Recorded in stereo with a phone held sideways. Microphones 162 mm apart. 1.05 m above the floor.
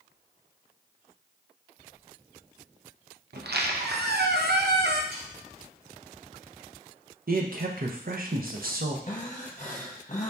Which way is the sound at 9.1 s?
50° left (ahead or behind).